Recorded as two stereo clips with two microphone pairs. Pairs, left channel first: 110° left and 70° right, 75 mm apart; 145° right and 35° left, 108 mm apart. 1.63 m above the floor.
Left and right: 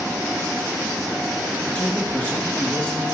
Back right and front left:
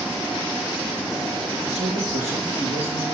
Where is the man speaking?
45° left, 4 m.